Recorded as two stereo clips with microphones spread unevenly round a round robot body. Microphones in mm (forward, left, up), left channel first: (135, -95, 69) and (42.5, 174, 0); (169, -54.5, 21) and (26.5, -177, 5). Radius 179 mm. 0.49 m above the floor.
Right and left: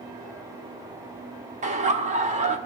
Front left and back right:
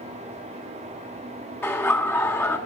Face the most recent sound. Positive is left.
turn(degrees=130)